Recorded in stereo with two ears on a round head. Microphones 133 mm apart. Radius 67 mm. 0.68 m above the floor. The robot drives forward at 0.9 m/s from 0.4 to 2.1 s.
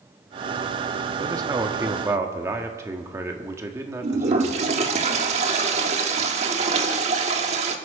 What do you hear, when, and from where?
1.2 s a man speaking: 25° right (ahead or behind), 1.0 m; by 4.6 s 20° right (ahead or behind), 1.4 m
4.0 s a toilet flushing: 45° right (ahead or behind), 1.3 m